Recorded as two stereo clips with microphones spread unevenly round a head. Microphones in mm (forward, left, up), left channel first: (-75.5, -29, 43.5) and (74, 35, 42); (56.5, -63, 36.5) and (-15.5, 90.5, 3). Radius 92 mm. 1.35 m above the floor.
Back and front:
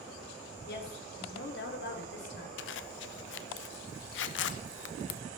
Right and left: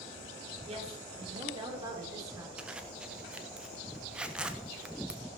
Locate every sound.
0.7 s a woman speaking: 175° left, 3 m; by 2.5 s 170° right, 3.5 m
2.6 s a zipper: 160° right, 0.8 m